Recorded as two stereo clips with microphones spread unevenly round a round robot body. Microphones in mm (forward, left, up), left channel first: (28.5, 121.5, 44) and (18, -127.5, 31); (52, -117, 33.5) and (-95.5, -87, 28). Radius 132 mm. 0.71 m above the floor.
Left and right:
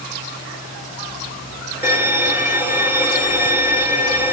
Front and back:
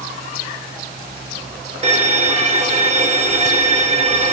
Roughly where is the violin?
Behind.